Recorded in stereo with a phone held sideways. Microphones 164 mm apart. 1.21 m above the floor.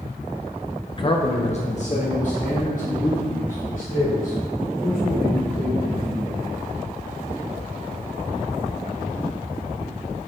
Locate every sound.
0.9 s a man speaking: 30° left (ahead or behind), 0.7 m; by 6.5 s 60° left (ahead or behind), 5.5 m